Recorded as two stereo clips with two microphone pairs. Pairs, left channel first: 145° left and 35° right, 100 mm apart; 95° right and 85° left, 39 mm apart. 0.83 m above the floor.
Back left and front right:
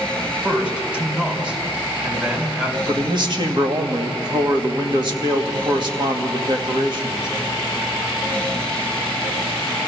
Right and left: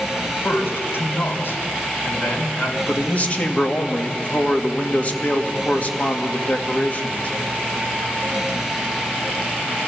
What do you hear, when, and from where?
0.2 s a man speaking: 105° right, 3 m
2.9 s a man speaking: 55° right, 1.5 m